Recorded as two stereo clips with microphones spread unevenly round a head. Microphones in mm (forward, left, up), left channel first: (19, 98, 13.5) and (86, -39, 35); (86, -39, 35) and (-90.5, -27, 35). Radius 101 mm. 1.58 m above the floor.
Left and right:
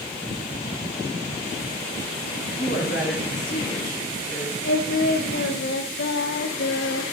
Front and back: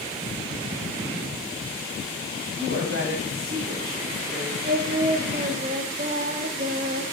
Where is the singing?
120° left, 1.0 m.